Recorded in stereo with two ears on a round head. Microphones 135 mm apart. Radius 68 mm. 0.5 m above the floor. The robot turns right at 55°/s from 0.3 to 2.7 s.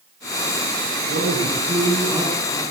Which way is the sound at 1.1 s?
75° right.